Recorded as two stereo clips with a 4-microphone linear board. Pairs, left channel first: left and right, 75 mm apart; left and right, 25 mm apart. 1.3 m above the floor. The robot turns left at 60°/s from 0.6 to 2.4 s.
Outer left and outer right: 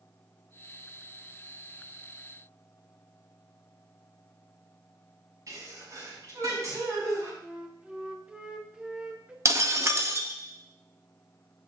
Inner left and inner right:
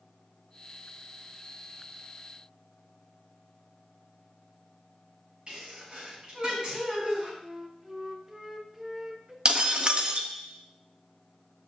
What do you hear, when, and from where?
5.5 s a sneeze: 45° right (ahead or behind), 6 m
7.4 s a flute: 15° right (ahead or behind), 0.8 m
9.4 s breaking glass: 40° right (ahead or behind), 0.9 m